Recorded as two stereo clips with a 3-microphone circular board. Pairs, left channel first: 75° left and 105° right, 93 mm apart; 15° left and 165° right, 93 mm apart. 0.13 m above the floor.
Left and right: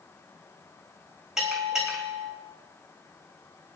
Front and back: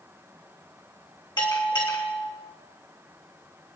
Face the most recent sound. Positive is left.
turn(degrees=-20)